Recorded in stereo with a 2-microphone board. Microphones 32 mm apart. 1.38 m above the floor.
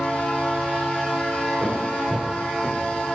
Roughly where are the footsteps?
Centre.